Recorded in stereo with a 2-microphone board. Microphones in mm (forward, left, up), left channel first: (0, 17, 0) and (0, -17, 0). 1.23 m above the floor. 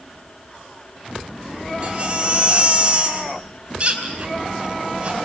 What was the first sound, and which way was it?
A baby crying, 30° right (ahead or behind).